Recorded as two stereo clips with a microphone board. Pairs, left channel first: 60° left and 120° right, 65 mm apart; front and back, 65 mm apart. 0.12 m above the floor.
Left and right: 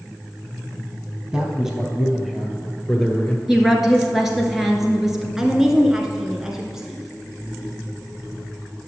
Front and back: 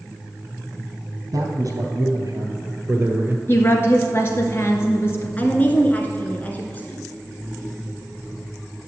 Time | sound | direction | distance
1.3 | a man speaking | 170° left | 2.5 m
3.5 | a woman speaking | 35° right | 1.9 m
5.4 | a woman speaking | 45° right | 1.2 m